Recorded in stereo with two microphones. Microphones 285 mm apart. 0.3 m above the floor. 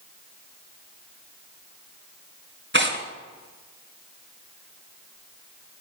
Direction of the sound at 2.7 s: 40° right (ahead or behind).